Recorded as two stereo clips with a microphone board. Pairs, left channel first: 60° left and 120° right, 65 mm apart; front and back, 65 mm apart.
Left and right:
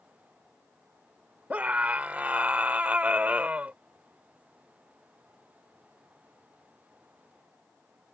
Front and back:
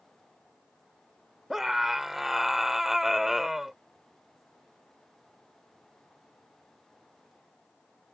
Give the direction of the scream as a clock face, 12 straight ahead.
3 o'clock.